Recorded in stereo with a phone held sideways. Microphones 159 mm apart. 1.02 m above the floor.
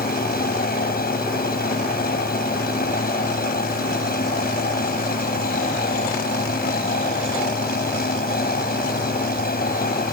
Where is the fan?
70° left (ahead or behind).